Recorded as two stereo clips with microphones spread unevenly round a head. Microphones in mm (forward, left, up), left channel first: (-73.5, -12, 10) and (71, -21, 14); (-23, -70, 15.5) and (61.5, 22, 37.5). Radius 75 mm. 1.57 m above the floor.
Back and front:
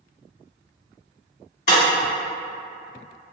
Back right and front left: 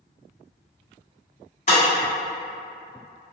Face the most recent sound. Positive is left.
turn(degrees=180)